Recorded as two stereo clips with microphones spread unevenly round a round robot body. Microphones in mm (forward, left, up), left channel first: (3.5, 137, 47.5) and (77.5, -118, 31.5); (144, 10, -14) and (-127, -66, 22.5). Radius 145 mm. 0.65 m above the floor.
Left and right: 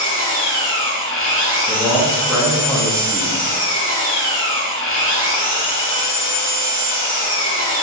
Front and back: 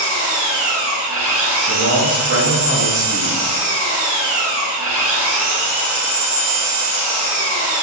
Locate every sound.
0.0 s an engine running: 155° left, 1.0 m
1.7 s a man speaking: 165° right, 0.6 m